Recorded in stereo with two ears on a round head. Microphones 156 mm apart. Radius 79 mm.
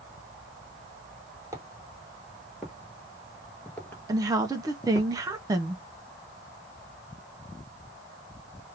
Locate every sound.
1.5 s footsteps: 20° right (ahead or behind), 1.6 m; by 5.1 s 25° left (ahead or behind), 1.4 m
4.1 s a woman speaking: 20° right (ahead or behind), 0.5 m